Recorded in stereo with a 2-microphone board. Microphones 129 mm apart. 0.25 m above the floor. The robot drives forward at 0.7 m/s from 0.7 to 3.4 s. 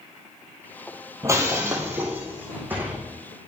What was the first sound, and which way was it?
Breaking glass, 25° right (ahead or behind).